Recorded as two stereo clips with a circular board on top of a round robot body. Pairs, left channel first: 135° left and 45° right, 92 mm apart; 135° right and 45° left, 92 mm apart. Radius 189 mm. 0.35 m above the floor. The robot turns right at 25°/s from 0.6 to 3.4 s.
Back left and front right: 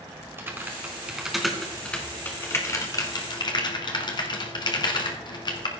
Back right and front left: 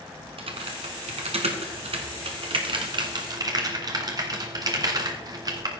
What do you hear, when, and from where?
0.4 s typing on a keyboard: 25° left, 1.3 m; by 5.7 s 95° left, 1.3 m